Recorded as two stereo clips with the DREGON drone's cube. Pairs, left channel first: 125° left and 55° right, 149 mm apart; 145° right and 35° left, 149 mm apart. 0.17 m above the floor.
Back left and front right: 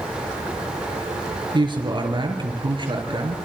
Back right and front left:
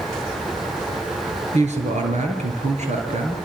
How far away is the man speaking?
About 4.5 m.